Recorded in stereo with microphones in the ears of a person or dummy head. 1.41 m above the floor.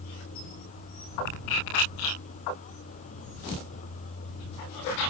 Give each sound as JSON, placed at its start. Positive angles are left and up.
{"t": 0.0, "sound": "a vehicle", "side_deg": 40}